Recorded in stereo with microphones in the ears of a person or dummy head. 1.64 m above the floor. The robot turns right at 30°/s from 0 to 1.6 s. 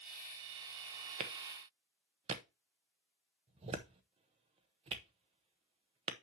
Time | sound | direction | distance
1.2 | a clap | 45° right (ahead or behind) | 0.9 m